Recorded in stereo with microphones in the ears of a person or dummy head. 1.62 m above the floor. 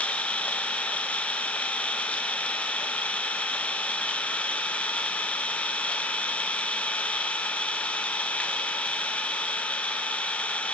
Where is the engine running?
10° left (ahead or behind), 0.9 m.